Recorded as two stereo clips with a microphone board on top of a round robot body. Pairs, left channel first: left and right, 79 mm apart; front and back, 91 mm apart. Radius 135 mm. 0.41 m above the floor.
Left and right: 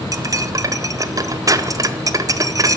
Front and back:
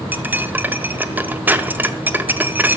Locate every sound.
0.1 s cutlery clinking: 115° right, 0.6 m